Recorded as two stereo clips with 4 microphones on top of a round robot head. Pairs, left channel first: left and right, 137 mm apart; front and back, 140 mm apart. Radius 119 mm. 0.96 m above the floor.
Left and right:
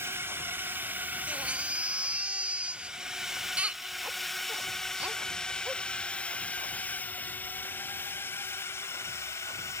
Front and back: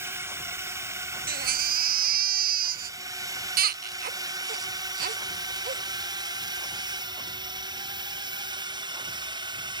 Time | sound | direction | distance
0.0 | a drone | 135° right | ?
1.3 | a baby crying | 170° right | ?